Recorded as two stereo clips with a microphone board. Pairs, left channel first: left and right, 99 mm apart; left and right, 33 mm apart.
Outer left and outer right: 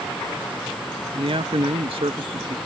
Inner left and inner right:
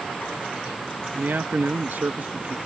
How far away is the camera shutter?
I don't hear a camera shutter.